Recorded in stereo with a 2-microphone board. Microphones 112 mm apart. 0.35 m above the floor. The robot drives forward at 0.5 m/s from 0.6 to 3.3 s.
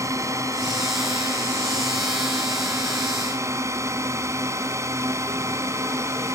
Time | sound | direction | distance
0.0 | a drone | 30° right (ahead or behind) | ?